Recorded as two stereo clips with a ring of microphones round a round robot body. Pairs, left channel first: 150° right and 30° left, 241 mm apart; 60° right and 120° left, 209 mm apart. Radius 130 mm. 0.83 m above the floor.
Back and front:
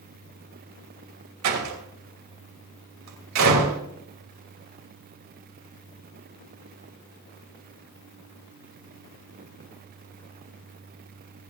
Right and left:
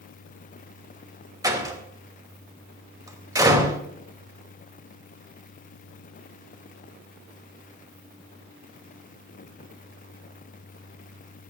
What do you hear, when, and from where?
1.4 s a door slam: 45° left, 3 m